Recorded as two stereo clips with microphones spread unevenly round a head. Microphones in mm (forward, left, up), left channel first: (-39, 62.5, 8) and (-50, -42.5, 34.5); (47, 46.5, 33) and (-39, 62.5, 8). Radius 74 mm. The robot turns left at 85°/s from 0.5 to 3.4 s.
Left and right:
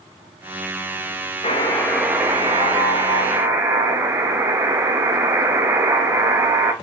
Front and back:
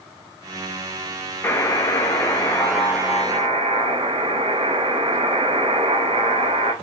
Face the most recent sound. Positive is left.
turn(degrees=-140)